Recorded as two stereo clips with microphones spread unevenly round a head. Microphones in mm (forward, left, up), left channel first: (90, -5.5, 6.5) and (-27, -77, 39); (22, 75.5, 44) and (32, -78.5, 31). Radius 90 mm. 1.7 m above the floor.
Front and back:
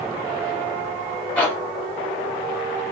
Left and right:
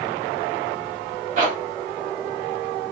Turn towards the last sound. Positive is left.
turn(degrees=-50)